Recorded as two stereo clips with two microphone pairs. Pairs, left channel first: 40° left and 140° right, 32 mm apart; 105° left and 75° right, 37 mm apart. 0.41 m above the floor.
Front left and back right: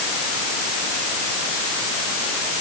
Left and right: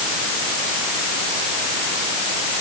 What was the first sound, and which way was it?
Only background noise.